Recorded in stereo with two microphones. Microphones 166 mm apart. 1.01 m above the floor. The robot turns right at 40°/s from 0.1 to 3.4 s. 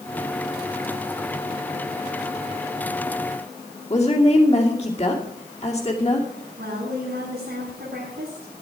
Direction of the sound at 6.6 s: 80° right.